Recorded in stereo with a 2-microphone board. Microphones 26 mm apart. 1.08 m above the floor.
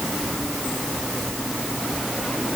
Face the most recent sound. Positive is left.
No sound to turn to.